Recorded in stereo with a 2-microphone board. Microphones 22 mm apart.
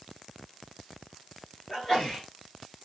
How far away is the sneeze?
About 1.6 m.